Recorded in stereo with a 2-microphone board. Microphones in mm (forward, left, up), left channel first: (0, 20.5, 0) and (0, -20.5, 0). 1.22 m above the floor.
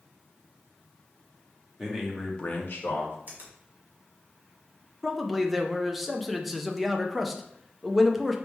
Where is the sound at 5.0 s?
5° right (ahead or behind), 0.5 m.